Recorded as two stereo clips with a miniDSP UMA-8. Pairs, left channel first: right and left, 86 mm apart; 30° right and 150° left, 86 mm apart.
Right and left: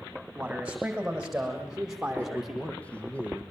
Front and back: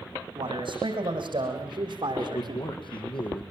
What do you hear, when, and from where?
0.3 s a man speaking: 170° left, 8 m; by 2.7 s 175° left, 5 m
2.2 s a man speaking: 15° right, 4 m